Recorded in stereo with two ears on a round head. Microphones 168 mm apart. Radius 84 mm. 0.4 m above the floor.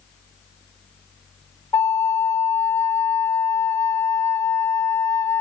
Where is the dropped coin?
I don't hear a dropped coin.